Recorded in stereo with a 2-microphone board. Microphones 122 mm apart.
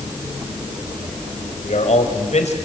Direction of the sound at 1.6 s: 70° left (ahead or behind).